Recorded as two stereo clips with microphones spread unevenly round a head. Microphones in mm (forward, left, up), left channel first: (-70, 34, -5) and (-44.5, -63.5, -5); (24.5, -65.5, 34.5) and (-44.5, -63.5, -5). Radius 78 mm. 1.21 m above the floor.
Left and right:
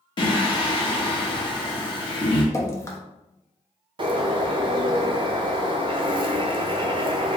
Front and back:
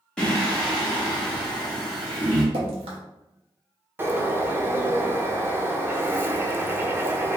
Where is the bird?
115° right, 0.6 m.